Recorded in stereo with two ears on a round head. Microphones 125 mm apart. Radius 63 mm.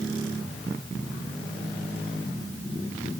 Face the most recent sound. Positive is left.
No sound to turn to.